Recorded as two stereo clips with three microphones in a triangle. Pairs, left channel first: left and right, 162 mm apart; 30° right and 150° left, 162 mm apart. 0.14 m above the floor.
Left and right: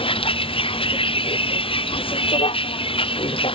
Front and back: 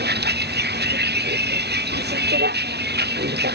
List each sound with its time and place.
0.0 s a vehicle: 145° left